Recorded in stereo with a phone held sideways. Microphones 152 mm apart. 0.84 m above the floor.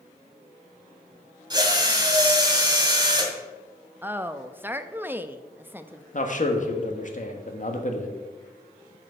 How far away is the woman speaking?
About 0.6 m.